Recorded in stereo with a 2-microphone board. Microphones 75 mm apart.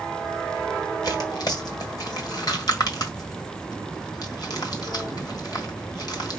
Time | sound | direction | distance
1.0 | tearing paper | 60° left (ahead or behind) | 1.5 m